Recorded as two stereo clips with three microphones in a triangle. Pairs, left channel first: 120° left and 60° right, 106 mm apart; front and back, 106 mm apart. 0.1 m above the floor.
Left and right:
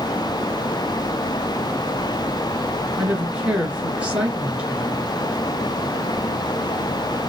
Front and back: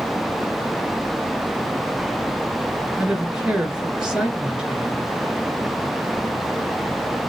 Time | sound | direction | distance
3.0 | a woman speaking | 115° right | 1.6 m